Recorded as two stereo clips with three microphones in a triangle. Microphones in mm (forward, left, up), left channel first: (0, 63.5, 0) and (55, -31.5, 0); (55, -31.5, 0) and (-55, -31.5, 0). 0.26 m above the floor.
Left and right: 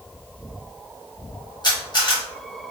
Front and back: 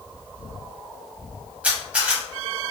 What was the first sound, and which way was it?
A camera shutter, 110° left.